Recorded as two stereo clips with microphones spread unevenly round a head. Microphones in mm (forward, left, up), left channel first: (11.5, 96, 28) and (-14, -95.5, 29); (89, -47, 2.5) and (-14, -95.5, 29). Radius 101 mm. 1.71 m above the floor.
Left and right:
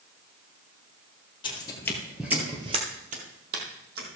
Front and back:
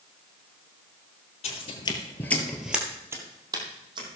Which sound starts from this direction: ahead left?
Footsteps, at 1.4 s.